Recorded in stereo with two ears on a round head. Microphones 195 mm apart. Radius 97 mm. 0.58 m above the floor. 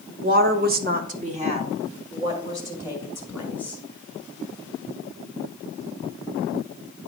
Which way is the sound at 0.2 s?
40° right (ahead or behind).